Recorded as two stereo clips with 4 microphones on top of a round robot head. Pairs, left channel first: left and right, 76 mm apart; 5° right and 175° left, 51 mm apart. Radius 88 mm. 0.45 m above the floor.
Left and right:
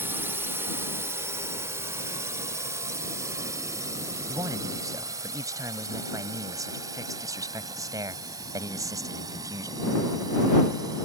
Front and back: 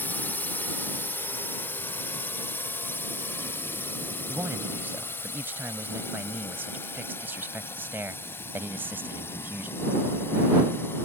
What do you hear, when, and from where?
0.0 s a drone: 40° right; by 11.1 s 50° right
4.3 s a man speaking: 130° right